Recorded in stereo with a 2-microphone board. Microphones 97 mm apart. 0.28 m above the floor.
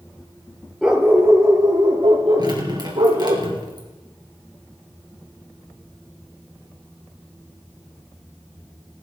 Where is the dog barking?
5° right (ahead or behind), 2.0 m; by 3.4 s 85° right, 4 m.